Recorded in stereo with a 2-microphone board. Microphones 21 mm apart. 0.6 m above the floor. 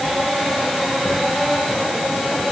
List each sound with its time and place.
Only background noise.